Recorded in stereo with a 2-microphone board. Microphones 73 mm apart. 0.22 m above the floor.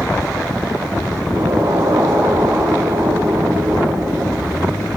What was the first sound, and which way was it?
An explosion, 50° right (ahead or behind).